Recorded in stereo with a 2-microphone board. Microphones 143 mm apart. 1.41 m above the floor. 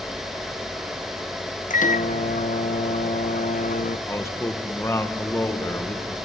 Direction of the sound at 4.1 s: 20° left (ahead or behind).